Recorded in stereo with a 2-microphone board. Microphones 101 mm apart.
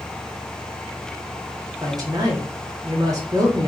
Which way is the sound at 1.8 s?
35° right (ahead or behind).